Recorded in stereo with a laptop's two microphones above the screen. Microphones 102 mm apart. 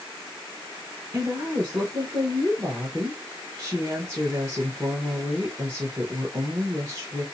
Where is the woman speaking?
30° right (ahead or behind), 1.2 m.